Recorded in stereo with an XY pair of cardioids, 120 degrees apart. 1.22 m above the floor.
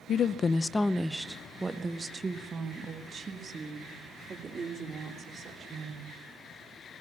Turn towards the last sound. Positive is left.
turn(degrees=-40)